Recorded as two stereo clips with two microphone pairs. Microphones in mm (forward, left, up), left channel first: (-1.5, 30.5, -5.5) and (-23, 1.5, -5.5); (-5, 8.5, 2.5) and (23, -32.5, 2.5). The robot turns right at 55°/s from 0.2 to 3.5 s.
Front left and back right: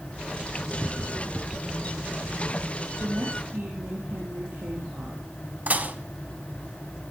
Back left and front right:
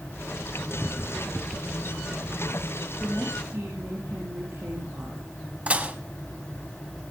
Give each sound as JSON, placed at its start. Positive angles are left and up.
{"t": 3.0, "sound": "a woman speaking", "azimuth_deg": -125, "distance_m": 6.5}
{"t": 5.7, "sound": "dishes clattering", "azimuth_deg": -110, "distance_m": 1.1}